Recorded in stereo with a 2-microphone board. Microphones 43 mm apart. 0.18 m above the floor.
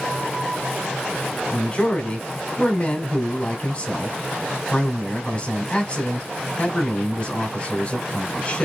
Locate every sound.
1.5 s a man speaking: 30° left (ahead or behind), 1.7 m